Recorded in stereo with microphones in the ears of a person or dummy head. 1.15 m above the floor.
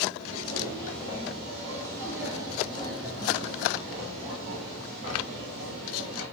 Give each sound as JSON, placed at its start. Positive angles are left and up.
{"t": 0.2, "sound": "footsteps", "side_deg": 25, "distance_m": 1.3}